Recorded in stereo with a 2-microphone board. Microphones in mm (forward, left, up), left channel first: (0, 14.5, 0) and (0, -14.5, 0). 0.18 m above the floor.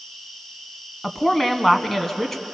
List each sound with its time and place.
0.0 s an insect: 10° left (ahead or behind), 4 m
1.0 s a woman speaking: 10° left (ahead or behind), 1.2 m